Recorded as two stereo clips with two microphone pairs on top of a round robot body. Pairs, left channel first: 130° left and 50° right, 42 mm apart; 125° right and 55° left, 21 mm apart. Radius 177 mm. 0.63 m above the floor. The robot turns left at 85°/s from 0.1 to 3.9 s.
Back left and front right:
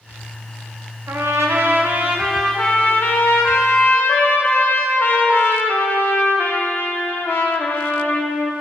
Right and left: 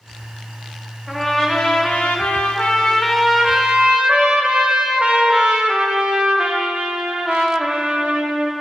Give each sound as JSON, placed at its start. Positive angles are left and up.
{"t": 1.1, "sound": "a trumpet", "azimuth_deg": -25, "distance_m": 0.5}